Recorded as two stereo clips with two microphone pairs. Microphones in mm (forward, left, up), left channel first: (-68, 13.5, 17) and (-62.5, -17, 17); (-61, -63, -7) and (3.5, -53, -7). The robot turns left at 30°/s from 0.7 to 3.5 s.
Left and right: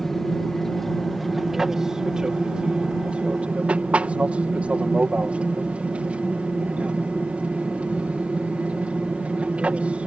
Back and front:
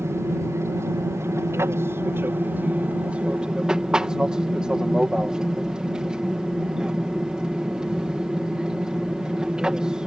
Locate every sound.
0.0 s an aircraft: 20° left; by 10.1 s 65° right